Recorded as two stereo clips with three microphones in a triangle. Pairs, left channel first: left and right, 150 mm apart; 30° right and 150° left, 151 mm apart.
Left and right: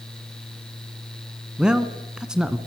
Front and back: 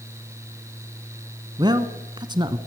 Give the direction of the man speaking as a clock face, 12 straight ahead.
6 o'clock.